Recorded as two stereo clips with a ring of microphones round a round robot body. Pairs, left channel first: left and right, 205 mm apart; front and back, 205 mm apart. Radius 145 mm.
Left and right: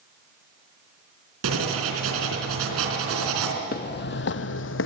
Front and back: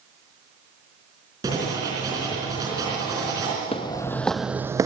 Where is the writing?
100° right, 3.5 m.